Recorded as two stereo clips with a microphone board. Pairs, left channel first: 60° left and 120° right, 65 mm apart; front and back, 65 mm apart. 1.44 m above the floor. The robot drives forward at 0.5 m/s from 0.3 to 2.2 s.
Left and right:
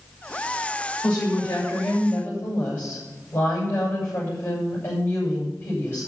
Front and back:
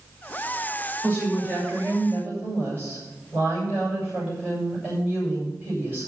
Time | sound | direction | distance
1.0 | a woman speaking | 115° left | 7.5 m